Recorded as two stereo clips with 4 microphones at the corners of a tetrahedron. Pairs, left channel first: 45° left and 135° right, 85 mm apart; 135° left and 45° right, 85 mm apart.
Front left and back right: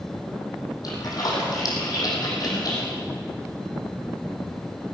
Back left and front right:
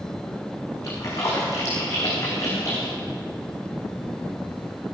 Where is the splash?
85° left, 5 m.